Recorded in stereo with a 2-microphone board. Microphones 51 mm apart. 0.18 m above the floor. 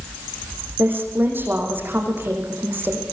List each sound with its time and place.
0.8 s a woman speaking: 45° right (ahead or behind), 7.5 m